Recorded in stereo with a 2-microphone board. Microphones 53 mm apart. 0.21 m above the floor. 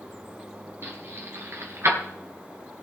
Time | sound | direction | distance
0.8 | keys jangling | 55° right (ahead or behind) | 3 m